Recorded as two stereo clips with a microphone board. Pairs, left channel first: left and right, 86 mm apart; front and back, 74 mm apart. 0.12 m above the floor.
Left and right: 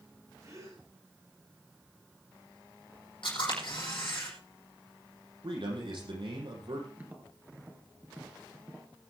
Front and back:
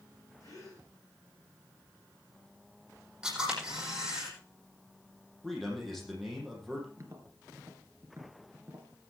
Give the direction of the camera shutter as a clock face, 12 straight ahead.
9 o'clock.